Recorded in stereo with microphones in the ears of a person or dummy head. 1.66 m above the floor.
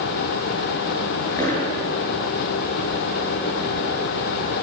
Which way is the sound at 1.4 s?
15° left (ahead or behind).